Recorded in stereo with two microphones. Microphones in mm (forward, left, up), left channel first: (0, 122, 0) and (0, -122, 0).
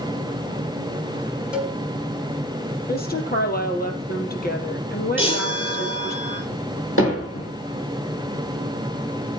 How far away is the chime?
About 8.5 m.